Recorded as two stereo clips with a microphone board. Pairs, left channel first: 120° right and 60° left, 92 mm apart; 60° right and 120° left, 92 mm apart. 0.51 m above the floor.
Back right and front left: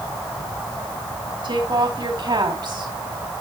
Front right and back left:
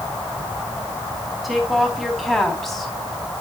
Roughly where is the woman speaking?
Ahead left.